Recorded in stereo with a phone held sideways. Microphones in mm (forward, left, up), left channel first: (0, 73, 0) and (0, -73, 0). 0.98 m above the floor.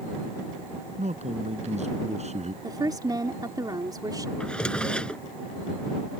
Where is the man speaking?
50° right (ahead or behind).